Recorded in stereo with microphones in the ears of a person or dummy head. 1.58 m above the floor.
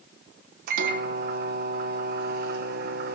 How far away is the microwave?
About 0.9 m.